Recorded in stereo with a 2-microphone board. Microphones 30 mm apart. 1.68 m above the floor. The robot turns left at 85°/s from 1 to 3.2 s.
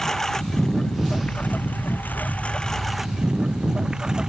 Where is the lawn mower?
160° left; by 4.3 s 25° right.